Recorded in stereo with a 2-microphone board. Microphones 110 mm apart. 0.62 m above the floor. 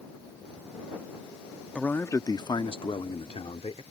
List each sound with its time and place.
1.8 s a man speaking: 10° left (ahead or behind); by 3.8 s 65° left (ahead or behind)